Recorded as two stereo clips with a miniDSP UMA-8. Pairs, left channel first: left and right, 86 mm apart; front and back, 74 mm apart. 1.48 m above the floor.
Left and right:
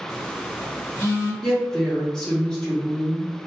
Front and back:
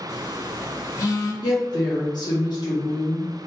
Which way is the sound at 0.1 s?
40° left.